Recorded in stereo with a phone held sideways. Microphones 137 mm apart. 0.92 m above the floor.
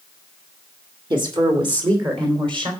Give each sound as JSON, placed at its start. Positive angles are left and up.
{"t": 1.1, "sound": "a woman speaking", "side_deg": -35, "distance_m": 1.9}